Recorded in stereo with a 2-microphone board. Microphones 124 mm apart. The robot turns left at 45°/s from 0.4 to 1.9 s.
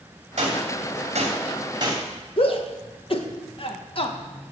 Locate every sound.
0.4 s a gunshot: 70° right (ahead or behind), 3 m; by 2.0 s 35° right (ahead or behind), 3 m
2.4 s a shout: 50° left (ahead or behind), 1.6 m